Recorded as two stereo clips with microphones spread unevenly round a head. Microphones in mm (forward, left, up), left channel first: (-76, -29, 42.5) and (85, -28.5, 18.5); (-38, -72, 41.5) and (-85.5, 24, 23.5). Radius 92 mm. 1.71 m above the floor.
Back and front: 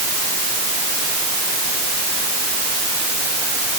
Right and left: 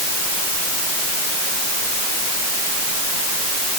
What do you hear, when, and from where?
Only background noise.